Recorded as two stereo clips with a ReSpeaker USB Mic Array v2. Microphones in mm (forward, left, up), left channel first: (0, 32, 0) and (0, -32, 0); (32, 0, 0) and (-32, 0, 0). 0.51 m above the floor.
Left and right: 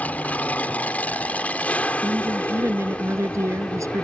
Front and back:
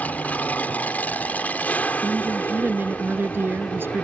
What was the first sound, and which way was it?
An aircraft, 45° left.